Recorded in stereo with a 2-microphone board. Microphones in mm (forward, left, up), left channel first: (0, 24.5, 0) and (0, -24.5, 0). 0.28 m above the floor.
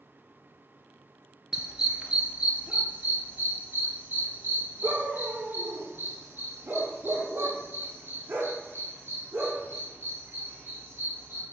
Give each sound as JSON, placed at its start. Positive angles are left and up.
{"t": 1.5, "sound": "a dog barking", "side_deg": -10, "distance_m": 1.7}